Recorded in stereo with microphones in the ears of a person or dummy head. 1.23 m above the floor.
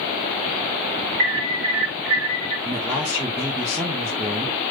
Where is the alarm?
65° right (ahead or behind), 4.5 m.